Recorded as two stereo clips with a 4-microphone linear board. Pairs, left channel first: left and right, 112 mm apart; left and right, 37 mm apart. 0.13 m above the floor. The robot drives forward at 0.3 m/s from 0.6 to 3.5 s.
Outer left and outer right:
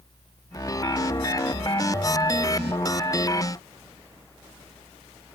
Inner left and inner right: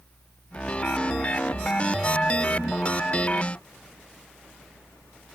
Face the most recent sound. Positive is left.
No sound to turn to.